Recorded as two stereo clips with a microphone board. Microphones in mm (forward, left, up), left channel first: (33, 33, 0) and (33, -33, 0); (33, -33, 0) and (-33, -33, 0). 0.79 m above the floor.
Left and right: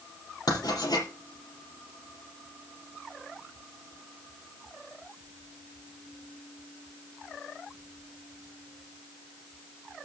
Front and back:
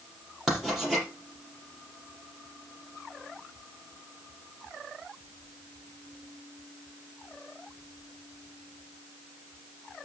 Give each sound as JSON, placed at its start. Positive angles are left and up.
{"t": 0.5, "sound": "writing", "azimuth_deg": 100, "distance_m": 5.5}